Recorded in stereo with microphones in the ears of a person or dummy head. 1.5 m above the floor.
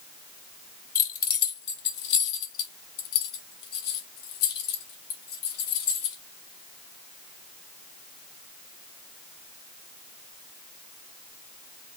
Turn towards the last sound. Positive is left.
turn(degrees=80)